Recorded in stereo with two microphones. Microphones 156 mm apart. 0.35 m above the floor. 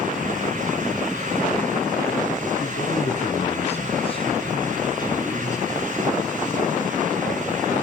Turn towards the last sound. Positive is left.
turn(degrees=20)  # may be behind; listen again after turning